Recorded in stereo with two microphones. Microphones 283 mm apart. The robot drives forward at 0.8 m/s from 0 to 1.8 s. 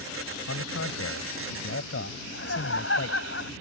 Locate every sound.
0.5 s a man speaking: 65° left (ahead or behind); by 3.2 s 50° left (ahead or behind)
2.2 s laughter: 50° left (ahead or behind)